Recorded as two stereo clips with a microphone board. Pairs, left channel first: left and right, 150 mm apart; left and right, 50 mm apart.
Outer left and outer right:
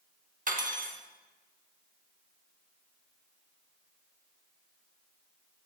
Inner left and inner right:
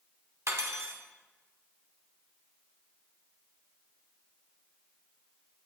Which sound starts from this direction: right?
Cutlery clinking, at 0.5 s.